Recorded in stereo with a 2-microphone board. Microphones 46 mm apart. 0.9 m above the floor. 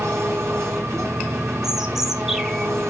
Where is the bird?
10° right (ahead or behind), 1.5 m.